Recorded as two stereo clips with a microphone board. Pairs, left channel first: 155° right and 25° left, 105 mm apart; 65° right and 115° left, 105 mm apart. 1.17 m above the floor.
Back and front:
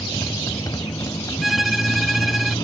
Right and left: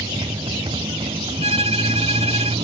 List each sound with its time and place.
0.0 s a motorcycle: 145° left
1.4 s a violin: 110° left